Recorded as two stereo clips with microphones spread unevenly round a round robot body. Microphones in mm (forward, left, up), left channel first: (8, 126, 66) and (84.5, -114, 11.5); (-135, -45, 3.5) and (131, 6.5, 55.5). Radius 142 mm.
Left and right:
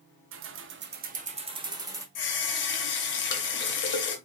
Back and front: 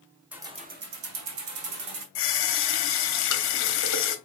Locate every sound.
0.3 s keys jangling: 80° right, 1.0 m; by 2.0 s 5° left, 1.9 m
2.1 s a running tap: 160° left, 1.2 m